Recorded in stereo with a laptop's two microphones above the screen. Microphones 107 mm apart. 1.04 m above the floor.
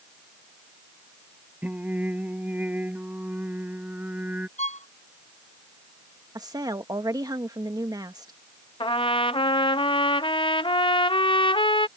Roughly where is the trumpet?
Left.